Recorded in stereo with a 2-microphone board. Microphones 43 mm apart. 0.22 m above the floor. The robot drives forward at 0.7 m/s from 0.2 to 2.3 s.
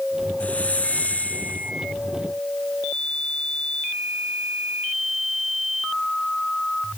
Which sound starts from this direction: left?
A hiss, at 0.4 s.